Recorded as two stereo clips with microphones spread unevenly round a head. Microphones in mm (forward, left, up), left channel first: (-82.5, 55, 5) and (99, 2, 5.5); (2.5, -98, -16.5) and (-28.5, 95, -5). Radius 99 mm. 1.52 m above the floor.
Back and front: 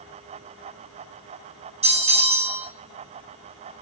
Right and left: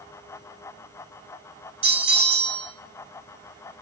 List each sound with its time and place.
1.8 s a bell: 40° left, 3.5 m